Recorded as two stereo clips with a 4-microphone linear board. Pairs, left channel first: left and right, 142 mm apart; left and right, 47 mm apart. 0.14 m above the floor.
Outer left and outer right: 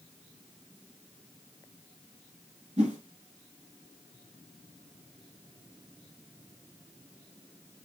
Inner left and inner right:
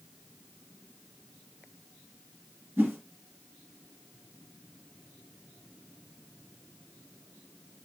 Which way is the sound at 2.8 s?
55° right (ahead or behind).